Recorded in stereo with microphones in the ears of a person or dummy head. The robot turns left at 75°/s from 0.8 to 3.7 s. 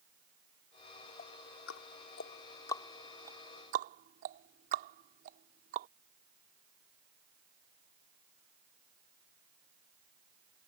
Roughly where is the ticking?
Left.